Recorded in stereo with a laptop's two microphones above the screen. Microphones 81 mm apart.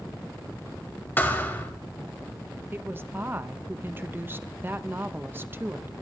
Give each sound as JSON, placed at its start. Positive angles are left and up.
{"t": 1.2, "sound": "a thud", "side_deg": 25, "distance_m": 1.6}
{"t": 2.7, "sound": "a woman speaking", "side_deg": -25, "distance_m": 0.7}